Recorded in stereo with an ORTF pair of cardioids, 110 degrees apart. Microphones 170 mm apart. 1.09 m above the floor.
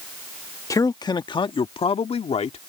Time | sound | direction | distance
0.7 | a man speaking | 20° left | ?